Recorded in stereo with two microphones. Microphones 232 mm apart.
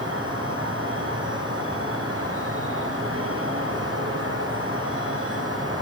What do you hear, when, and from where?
0.0 s an insect: 70° right (ahead or behind), 4 m